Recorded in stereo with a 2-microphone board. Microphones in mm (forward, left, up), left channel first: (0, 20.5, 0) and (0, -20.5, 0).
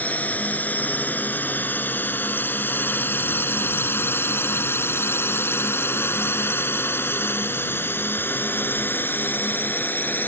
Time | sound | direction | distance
0.0 | a drone | 40° left (ahead or behind) | ?